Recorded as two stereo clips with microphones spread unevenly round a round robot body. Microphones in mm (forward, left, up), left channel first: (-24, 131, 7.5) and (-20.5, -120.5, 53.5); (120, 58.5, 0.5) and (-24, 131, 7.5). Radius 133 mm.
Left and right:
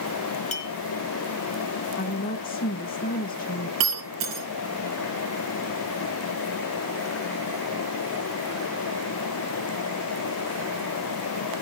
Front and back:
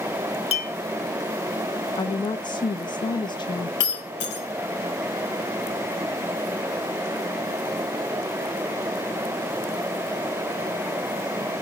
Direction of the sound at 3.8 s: 50° right.